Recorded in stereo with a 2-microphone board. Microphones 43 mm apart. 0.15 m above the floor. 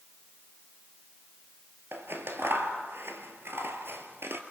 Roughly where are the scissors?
Right.